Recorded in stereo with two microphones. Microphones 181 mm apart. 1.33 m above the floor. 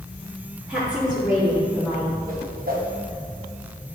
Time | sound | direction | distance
0.7 | a woman speaking | 5° right (ahead or behind) | 2.5 m
2.3 | a whoosh | 55° right (ahead or behind) | 1.2 m